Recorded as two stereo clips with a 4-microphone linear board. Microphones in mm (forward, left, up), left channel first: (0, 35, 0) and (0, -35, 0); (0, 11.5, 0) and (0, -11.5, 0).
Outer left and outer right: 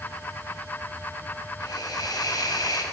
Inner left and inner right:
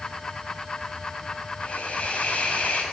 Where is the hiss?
70° left (ahead or behind), 6 m.